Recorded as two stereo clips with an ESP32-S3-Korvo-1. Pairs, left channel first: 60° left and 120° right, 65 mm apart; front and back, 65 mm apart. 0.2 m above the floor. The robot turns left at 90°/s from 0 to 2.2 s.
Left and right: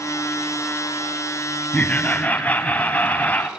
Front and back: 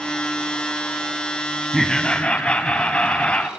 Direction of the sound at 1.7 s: 85° left.